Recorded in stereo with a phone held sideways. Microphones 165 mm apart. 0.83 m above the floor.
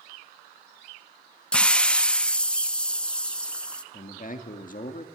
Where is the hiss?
5° left (ahead or behind), 0.6 m.